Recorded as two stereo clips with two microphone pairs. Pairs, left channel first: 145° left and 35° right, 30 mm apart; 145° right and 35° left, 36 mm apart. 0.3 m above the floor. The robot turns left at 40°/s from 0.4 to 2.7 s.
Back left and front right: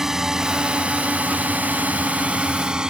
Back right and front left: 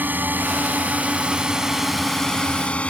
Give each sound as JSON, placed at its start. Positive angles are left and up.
{"t": 0.0, "sound": "a drone", "azimuth_deg": 35}